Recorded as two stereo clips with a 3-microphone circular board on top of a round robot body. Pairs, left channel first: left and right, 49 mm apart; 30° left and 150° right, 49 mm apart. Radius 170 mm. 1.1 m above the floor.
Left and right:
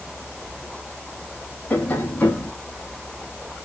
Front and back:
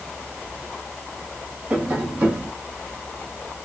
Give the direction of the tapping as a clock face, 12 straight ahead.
7 o'clock.